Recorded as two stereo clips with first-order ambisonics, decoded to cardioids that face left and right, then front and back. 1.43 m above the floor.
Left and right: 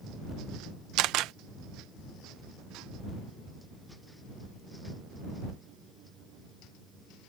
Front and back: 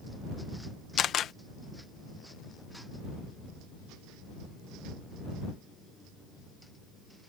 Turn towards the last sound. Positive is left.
turn(degrees=-55)